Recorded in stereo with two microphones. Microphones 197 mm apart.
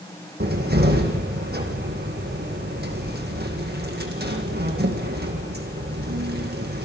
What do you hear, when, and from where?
0.4 s a cupboard door: 55° right (ahead or behind), 4.5 m